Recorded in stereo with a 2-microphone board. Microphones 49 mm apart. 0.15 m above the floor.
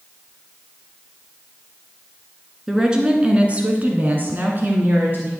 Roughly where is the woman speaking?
Centre.